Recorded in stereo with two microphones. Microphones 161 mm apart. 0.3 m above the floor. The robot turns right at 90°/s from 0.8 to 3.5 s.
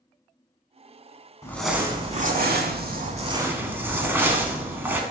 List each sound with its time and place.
1.4 s crumpling: 160° left, 0.6 m; by 5.0 s 15° right, 0.6 m